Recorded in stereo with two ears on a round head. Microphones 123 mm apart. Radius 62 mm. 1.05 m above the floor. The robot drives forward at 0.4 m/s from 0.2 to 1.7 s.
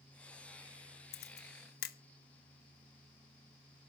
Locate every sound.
1.1 s a camera shutter: 85° left, 1.3 m; by 2.0 s 80° left, 1.3 m